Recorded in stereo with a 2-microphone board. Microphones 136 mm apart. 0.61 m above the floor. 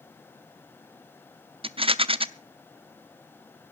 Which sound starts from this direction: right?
A rattle, at 1.6 s.